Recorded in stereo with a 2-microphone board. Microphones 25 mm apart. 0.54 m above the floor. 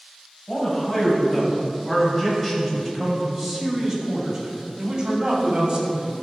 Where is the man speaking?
30° left (ahead or behind), 2.5 m; by 6.1 s 35° right (ahead or behind), 2.5 m.